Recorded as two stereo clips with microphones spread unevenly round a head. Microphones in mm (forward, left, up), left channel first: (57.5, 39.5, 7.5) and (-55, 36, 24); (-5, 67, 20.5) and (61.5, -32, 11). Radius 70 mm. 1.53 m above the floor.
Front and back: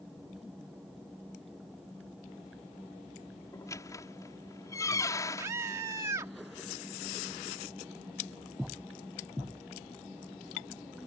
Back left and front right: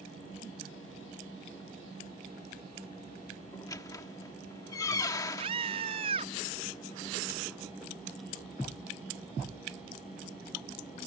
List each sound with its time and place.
3.5 s a squeak: 65° left
5.4 s a scream: 110° right